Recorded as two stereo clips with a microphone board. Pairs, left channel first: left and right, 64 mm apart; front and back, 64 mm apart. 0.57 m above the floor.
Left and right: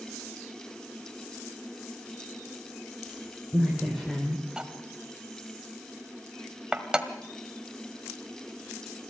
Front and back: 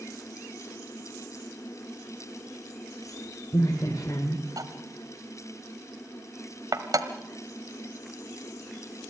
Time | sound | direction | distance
3.0 | a woman speaking | 5° left | 3.5 m
4.6 | cutlery clinking | 165° right | 1.5 m